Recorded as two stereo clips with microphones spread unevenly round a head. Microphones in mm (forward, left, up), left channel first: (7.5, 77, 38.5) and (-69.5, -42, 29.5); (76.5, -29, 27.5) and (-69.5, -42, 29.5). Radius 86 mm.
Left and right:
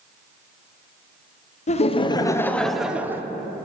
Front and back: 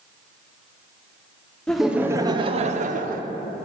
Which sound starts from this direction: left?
Laughter, at 1.7 s.